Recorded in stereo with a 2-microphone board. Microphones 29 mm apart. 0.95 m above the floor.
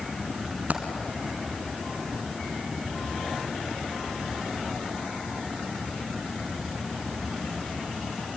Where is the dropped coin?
60° right (ahead or behind), 2.5 m.